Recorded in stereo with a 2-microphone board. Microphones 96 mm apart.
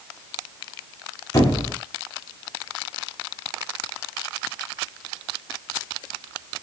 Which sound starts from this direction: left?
A squeak, at 1.3 s.